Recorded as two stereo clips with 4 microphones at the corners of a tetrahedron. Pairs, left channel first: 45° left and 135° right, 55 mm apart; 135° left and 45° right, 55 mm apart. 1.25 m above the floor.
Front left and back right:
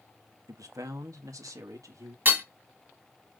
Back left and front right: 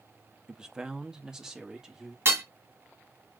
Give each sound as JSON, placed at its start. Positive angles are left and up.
{"t": 0.5, "sound": "a man speaking", "azimuth_deg": -120, "distance_m": 1.4}
{"t": 2.2, "sound": "hammering", "azimuth_deg": -80, "distance_m": 2.0}